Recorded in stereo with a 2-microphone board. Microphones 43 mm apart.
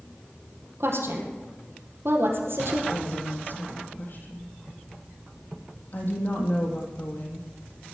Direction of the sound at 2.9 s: 50° left (ahead or behind).